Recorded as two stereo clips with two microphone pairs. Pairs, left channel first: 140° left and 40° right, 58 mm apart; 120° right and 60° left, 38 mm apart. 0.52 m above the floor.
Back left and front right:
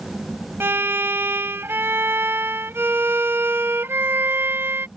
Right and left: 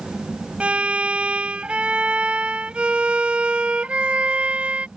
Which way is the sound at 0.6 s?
5° left.